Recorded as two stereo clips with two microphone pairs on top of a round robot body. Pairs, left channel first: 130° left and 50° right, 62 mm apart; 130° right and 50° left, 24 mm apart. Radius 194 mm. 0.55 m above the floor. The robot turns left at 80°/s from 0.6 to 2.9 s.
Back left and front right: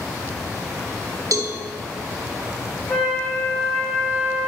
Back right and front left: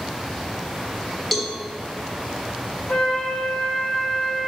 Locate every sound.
1.3 s a cowbell: 40° right, 1.2 m; by 1.6 s 60° right, 1.2 m
2.9 s a flute: 145° right, 1.4 m